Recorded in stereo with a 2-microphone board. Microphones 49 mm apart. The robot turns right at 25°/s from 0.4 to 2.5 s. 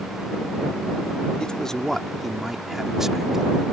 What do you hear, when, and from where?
1.4 s a man speaking: 20° left (ahead or behind); by 3.5 s 10° right (ahead or behind)